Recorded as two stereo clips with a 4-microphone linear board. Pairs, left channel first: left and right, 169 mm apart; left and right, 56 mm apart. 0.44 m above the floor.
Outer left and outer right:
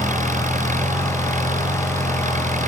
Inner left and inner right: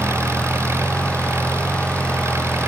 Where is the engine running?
50° right (ahead or behind).